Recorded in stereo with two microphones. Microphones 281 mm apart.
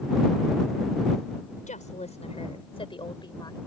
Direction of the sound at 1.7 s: 25° left (ahead or behind).